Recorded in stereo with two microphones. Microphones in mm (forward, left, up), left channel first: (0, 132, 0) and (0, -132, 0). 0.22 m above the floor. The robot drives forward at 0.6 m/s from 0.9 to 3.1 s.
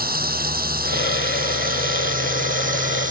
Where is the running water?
35° right (ahead or behind); by 3.1 s 30° right (ahead or behind).